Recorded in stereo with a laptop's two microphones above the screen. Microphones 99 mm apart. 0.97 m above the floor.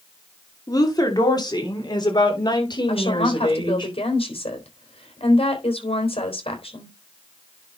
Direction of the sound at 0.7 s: 40° left (ahead or behind).